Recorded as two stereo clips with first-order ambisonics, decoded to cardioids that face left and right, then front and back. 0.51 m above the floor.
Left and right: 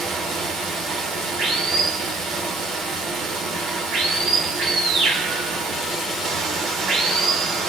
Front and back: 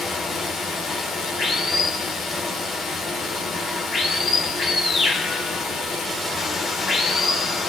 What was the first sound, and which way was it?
Running water, 55° right.